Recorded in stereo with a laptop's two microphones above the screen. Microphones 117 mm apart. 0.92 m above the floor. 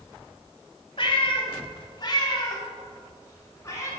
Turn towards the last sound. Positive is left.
turn(degrees=25)  # may be behind; listen again after turning